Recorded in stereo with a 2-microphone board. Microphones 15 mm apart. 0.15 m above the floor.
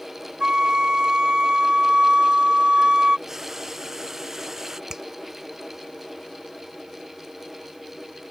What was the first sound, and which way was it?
A flute, 60° right (ahead or behind).